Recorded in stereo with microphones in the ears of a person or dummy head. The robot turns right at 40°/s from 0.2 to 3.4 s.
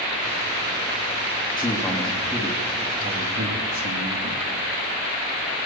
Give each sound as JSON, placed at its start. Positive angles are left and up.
{"t": 1.6, "sound": "a man speaking", "azimuth_deg": 155, "distance_m": 3.0}